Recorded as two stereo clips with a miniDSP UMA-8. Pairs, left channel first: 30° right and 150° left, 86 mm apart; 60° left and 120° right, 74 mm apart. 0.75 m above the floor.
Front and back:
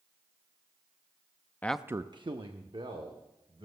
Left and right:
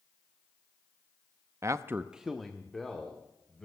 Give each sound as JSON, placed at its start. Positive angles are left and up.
{"t": 1.6, "sound": "a man speaking", "azimuth_deg": -90, "distance_m": 0.5}